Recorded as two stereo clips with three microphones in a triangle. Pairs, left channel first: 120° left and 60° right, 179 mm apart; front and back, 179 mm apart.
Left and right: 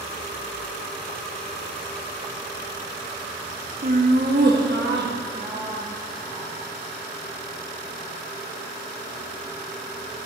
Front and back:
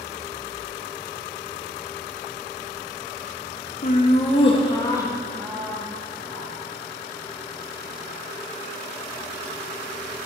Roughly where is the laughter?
Ahead right.